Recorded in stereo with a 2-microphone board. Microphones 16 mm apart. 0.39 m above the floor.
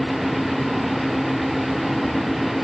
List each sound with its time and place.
Only background noise.